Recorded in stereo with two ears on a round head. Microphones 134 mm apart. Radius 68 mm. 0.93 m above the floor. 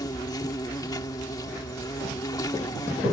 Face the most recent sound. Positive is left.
turn(degrees=25)  # may be behind; listen again after turning